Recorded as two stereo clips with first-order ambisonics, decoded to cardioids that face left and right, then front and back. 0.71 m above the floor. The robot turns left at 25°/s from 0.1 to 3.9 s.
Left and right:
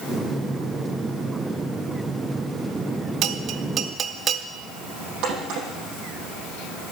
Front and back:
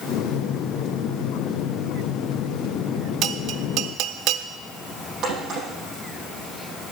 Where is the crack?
125° right, 7 m.